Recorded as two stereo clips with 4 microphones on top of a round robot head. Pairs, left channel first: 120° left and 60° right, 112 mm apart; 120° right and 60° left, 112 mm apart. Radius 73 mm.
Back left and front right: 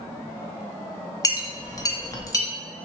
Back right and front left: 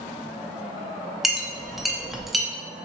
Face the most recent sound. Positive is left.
turn(degrees=145)